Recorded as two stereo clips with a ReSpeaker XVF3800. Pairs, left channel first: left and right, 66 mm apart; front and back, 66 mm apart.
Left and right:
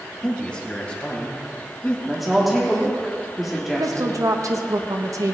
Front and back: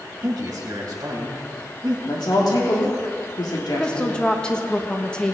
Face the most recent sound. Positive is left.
turn(degrees=-75)